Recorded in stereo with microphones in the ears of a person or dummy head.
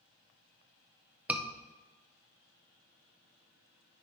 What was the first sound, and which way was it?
A scream, 5° right (ahead or behind).